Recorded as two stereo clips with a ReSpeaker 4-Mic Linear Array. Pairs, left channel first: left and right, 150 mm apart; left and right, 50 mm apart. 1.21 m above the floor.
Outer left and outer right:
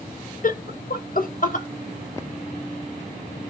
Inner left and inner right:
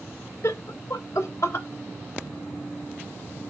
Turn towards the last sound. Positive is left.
turn(degrees=60)  # may be behind; listen again after turning